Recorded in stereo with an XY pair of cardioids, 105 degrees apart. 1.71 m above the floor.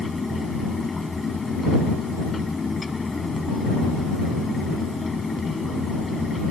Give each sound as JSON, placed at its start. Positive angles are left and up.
{"t": 0.0, "sound": "a fan", "azimuth_deg": 25}